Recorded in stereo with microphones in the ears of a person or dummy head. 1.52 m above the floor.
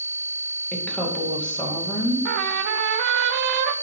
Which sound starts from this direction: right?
A trumpet, at 2.2 s.